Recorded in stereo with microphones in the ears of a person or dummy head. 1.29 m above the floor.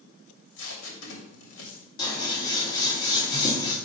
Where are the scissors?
25° left (ahead or behind), 2.5 m.